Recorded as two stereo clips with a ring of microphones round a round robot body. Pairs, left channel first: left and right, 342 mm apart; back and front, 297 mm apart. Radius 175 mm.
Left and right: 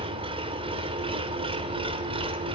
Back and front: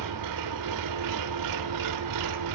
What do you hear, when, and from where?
0.0 s an engine running: 15° right, 3 m